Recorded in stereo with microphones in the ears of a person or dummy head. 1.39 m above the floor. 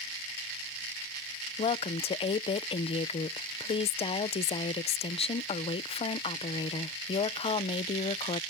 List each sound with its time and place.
1.6 s a woman speaking: 30° left (ahead or behind)